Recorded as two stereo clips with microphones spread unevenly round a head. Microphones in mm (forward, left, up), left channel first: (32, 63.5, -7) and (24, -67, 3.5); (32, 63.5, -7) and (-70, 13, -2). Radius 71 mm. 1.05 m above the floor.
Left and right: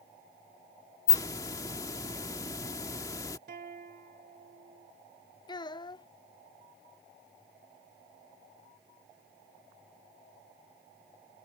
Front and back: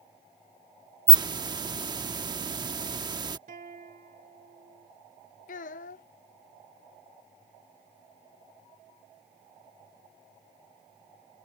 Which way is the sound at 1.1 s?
155° left.